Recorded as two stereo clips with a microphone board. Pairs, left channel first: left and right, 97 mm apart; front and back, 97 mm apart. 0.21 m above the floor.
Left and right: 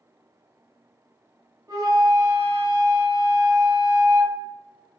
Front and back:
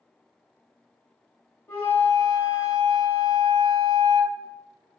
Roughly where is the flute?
Ahead right.